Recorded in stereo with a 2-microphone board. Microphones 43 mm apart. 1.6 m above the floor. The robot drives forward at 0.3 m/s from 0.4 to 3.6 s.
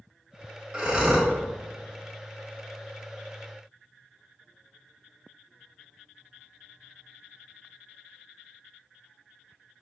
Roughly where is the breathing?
Centre.